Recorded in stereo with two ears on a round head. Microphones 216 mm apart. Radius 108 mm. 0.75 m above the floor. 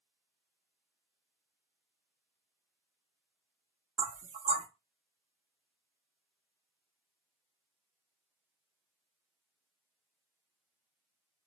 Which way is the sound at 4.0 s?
30° right (ahead or behind).